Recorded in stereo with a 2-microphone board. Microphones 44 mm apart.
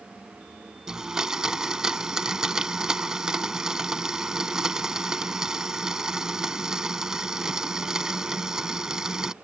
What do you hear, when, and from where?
0.9 s a blender: 15° right (ahead or behind)